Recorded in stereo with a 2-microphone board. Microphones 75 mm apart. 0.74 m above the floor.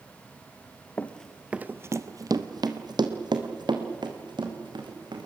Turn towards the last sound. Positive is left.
turn(degrees=-80)